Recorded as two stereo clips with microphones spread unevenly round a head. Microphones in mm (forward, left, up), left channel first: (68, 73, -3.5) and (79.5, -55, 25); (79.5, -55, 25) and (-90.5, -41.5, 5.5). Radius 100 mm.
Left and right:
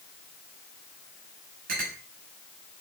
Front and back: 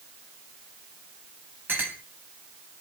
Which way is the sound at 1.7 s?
105° right.